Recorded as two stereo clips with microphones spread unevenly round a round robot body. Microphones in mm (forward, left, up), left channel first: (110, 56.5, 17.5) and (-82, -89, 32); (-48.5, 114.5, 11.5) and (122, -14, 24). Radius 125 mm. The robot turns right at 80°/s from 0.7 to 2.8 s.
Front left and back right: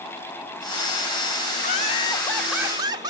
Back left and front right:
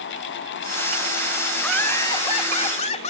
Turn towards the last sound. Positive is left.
turn(degrees=150)